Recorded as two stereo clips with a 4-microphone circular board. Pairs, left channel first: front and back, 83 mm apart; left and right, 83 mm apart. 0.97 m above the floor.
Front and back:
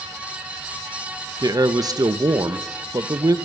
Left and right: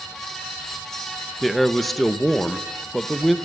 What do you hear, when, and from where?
1.4 s a man speaking: 175° left, 1.1 m